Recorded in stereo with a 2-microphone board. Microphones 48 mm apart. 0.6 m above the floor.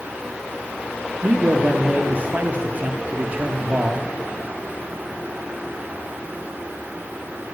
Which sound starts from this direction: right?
A man speaking, at 1.2 s.